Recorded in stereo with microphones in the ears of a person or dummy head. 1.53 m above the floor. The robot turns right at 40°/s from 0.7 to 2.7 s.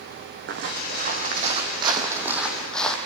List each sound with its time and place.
0.5 s footsteps: 65° right (ahead or behind), 4.5 m; by 3.0 s 5° left (ahead or behind), 3.5 m